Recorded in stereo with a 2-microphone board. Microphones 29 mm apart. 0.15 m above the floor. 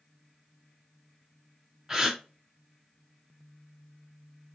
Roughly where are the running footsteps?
No running footsteps in this recording.